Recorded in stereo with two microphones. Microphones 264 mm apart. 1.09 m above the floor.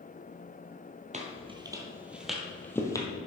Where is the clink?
I don't hear a clink.